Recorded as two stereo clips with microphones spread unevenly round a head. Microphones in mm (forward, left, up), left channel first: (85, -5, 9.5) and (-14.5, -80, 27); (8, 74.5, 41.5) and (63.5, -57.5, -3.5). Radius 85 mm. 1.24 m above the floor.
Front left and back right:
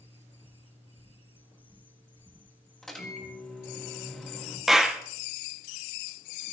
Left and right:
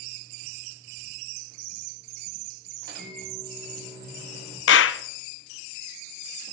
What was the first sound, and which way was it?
A microwave, 50° right.